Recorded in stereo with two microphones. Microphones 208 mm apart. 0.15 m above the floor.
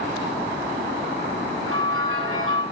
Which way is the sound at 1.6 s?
90° right.